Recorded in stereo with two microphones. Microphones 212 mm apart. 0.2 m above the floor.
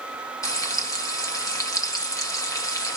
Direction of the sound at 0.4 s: 15° left (ahead or behind).